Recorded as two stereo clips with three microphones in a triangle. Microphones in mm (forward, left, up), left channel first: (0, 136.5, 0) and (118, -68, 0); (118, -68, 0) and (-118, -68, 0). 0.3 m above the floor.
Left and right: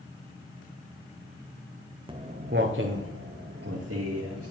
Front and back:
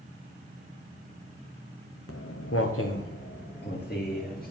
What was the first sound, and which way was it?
Footsteps, 10° left.